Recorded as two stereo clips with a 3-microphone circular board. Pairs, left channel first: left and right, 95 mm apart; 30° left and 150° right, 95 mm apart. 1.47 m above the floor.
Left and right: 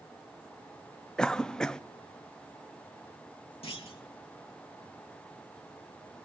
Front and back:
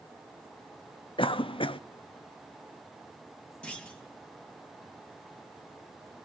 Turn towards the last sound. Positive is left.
turn(degrees=110)